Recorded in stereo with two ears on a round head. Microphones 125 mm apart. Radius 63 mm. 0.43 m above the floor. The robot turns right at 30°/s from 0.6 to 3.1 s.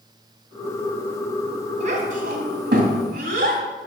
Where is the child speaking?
55° right (ahead or behind), 2.5 m; by 3.6 s 70° right (ahead or behind), 2.5 m.